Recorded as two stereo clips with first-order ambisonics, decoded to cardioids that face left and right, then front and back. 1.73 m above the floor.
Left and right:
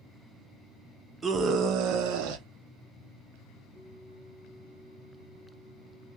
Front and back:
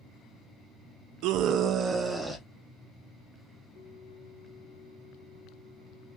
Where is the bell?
5° left, 1.9 m.